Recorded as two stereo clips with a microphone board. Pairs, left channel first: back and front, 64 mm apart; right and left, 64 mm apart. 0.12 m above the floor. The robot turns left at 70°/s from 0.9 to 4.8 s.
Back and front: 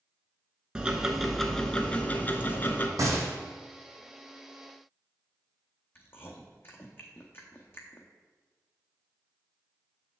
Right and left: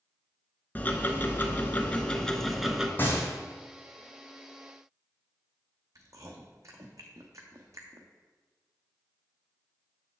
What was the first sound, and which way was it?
Ticking, 65° right.